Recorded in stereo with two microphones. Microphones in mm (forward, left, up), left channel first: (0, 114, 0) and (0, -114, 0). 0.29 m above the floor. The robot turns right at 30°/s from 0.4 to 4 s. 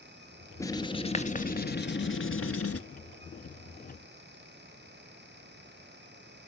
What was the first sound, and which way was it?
Writing, 15° left.